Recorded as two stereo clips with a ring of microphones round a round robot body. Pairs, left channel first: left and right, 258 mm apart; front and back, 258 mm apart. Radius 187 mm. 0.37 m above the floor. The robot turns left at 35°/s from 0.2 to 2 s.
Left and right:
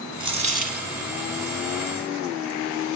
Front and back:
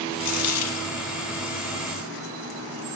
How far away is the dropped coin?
About 1.6 m.